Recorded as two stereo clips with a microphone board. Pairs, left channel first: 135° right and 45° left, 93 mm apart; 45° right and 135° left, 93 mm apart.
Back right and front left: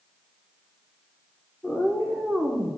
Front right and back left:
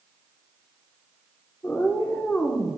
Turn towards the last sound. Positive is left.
turn(degrees=10)